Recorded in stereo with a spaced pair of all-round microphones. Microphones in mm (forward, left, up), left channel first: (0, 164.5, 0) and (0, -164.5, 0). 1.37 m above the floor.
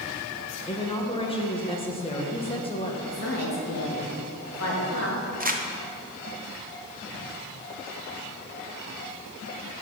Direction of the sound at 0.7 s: 15° left (ahead or behind).